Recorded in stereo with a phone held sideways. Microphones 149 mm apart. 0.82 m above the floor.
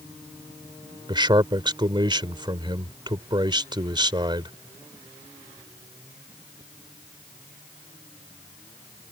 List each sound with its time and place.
1.1 s a man speaking: 30° right (ahead or behind)